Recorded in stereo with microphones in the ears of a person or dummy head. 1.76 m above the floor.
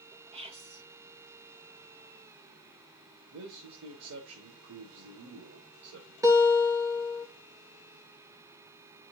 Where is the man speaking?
70° right (ahead or behind), 1.5 m.